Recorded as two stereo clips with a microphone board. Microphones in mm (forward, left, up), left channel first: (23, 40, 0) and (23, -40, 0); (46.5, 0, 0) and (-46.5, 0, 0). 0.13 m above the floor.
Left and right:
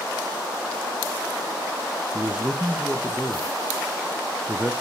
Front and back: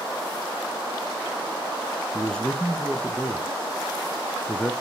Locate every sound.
2.1 s a man speaking: 60° right, 1.1 m